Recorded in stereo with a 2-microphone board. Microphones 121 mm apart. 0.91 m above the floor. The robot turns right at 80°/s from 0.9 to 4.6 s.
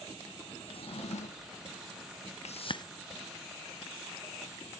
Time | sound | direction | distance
0.7 | a drawer | 55° left | 0.6 m
2.5 | a whoosh | 65° left (ahead or behind) | 0.5 m